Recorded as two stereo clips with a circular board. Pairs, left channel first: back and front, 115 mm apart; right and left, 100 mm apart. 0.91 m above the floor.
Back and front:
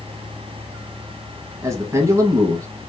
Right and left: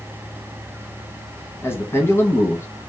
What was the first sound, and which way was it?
A man speaking, 40° right.